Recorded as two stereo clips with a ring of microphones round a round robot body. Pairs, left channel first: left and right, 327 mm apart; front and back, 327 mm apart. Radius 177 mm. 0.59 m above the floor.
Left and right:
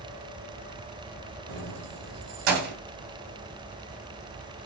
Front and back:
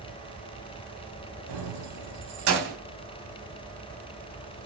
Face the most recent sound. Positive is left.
turn(degrees=-120)